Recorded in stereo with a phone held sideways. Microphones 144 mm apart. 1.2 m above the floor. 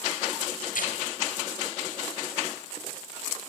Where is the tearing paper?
85° left, 4 m.